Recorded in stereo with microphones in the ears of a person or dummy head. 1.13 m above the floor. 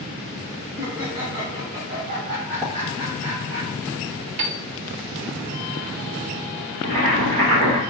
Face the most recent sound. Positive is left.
turn(degrees=-30)  # may be behind; listen again after turning